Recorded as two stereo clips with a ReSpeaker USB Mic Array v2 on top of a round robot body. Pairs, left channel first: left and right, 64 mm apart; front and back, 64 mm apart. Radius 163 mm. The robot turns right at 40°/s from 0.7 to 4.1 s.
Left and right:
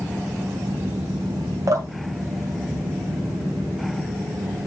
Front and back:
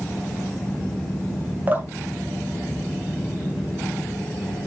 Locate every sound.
1.7 s dripping: 120° right, 2.5 m; by 3.7 s 40° right, 2.5 m